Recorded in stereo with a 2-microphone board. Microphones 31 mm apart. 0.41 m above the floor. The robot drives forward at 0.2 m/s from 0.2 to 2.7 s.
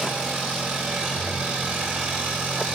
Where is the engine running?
80° right, 7.5 m.